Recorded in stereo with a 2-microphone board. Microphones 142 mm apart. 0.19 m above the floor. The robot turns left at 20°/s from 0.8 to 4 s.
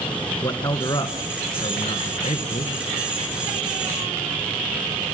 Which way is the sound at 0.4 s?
150° left.